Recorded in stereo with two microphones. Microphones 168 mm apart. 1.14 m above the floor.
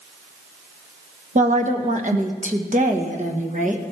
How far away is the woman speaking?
About 1.3 m.